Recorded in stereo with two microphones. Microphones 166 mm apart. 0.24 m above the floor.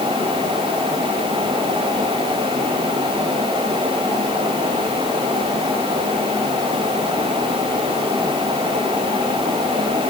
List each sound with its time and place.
Only background noise.